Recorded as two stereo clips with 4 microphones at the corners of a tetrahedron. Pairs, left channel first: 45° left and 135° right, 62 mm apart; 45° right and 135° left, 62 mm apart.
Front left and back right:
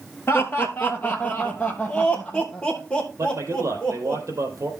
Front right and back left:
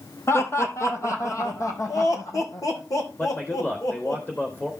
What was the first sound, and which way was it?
Laughter, straight ahead.